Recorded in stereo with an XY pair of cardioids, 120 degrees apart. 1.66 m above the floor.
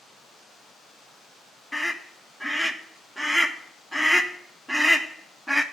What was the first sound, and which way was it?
A scream, 5° left.